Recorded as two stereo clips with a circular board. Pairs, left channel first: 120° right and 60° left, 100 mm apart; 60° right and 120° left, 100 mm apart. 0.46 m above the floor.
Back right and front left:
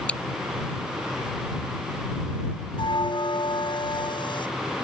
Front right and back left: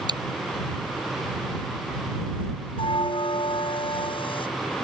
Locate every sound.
0.1 s chewing: 165° left
2.8 s a bell: 85° right